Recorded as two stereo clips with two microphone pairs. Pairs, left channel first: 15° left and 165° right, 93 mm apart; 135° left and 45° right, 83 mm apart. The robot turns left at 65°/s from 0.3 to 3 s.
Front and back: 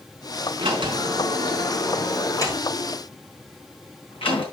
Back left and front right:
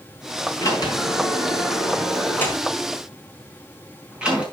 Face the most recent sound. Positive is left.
turn(degrees=30)